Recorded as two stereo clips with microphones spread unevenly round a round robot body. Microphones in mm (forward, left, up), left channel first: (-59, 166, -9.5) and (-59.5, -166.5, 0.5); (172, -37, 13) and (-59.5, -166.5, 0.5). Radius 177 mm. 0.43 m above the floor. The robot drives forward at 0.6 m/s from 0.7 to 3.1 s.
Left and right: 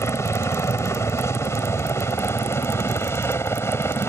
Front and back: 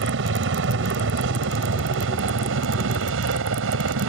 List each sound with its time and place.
0.0 s a helicopter: 170° left